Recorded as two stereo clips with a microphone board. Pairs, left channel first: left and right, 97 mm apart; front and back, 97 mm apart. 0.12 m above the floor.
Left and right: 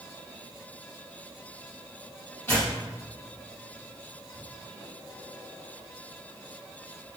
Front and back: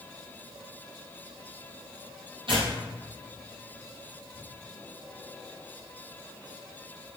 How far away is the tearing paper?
About 2.5 m.